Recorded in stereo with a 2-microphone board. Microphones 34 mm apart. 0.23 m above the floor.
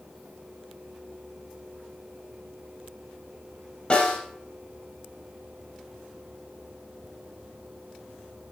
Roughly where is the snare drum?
Left.